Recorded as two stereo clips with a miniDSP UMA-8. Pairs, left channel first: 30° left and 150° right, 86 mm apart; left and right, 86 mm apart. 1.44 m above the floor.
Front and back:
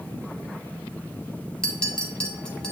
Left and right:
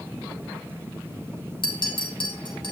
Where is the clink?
110° left, 1.7 m.